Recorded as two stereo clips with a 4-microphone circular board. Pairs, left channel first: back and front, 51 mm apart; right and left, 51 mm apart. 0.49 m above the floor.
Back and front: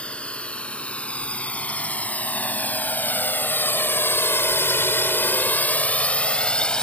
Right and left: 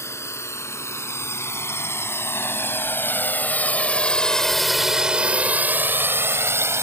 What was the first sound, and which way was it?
A drone, 115° right.